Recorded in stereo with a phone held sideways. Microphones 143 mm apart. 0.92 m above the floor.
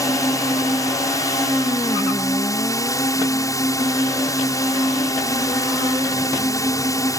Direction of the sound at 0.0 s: 25° left (ahead or behind).